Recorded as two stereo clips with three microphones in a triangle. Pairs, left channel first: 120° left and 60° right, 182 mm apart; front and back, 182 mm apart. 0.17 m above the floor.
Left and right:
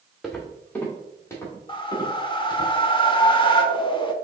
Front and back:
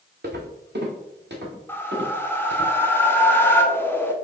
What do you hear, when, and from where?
0.2 s footsteps: 150° right, 1.0 m; by 2.7 s 170° right, 2.5 m
1.7 s a whoosh: 70° left, 0.5 m